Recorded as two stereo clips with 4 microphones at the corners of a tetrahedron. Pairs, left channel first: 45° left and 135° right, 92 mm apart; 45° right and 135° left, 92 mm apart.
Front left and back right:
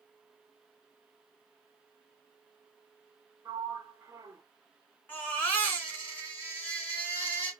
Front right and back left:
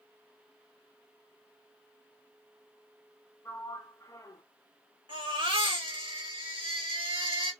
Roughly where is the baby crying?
Behind left.